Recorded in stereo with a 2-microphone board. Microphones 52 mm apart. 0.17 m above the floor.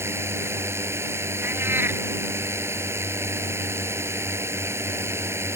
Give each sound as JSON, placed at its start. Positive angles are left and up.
{"t": 0.0, "sound": "a drone", "side_deg": -55}
{"t": 1.4, "sound": "a cat meowing", "side_deg": -45}